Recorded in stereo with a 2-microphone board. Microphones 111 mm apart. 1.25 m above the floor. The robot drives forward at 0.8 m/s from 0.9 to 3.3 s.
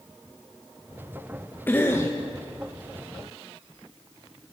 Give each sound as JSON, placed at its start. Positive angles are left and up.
{"t": 1.7, "sound": "a cough", "side_deg": 20, "distance_m": 1.6}